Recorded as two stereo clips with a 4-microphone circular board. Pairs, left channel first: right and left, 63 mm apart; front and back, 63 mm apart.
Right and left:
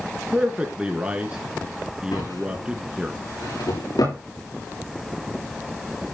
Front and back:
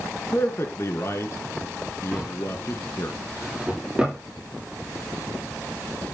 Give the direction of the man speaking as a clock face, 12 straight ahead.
11 o'clock.